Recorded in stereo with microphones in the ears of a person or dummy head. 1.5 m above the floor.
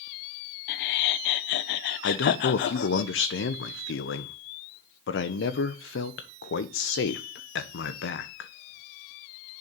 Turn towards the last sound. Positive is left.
turn(degrees=55)  # may be behind; listen again after turning